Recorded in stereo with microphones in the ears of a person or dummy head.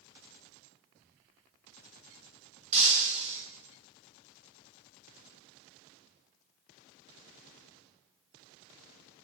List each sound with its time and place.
2.7 s breaking glass: 35° right (ahead or behind), 3.5 m